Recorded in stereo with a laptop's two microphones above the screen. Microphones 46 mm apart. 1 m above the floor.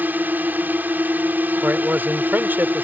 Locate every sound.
0.0 s a drone: 45° right (ahead or behind)
1.6 s a man speaking: 45° right (ahead or behind)